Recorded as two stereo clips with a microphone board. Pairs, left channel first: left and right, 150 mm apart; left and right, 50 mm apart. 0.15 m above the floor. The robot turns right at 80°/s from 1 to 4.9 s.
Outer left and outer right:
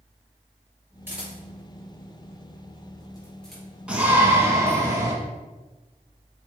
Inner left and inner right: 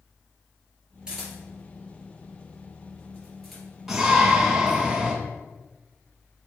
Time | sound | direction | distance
1.1 | a camera shutter | 15° right (ahead or behind) | 3 m
3.9 | a shout | 5° right (ahead or behind) | 1.1 m